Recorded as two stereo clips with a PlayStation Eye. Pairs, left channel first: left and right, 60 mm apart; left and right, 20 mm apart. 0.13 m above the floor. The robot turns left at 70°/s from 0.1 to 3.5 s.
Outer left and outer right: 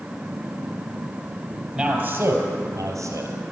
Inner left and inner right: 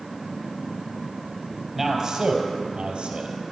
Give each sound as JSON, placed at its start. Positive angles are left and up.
{"t": 1.8, "sound": "a man speaking", "azimuth_deg": -10, "distance_m": 3.0}